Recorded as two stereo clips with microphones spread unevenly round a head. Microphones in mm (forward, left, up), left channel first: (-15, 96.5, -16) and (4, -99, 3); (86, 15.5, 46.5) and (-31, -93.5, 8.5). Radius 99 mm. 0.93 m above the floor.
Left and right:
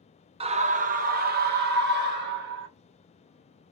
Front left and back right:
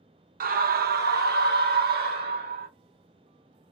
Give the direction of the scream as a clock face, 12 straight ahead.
5 o'clock.